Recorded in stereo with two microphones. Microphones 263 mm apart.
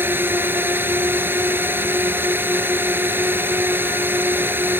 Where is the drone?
10° right (ahead or behind).